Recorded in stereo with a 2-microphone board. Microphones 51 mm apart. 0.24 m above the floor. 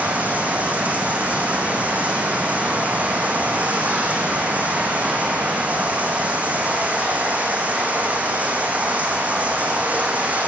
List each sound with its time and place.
0.0 s running water: 30° right (ahead or behind), 4.5 m